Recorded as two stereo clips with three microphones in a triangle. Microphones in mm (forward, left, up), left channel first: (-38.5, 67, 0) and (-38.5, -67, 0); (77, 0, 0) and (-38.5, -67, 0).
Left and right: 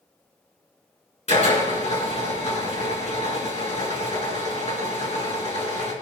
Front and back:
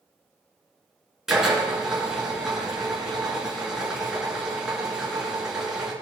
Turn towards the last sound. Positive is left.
turn(degrees=125)